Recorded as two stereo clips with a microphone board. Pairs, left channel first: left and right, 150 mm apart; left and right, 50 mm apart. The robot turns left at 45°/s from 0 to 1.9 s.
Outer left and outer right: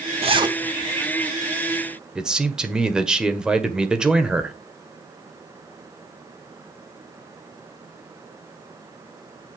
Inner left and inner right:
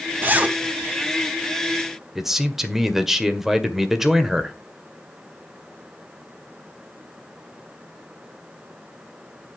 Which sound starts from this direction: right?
A zipper, at 0.2 s.